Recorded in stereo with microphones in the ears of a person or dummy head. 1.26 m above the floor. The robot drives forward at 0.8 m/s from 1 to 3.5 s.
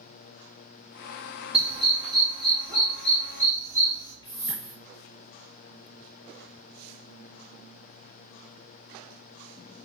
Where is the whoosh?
25° left (ahead or behind), 3.5 m.